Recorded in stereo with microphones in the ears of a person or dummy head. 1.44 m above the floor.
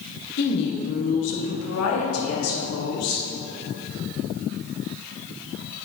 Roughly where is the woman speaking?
Left.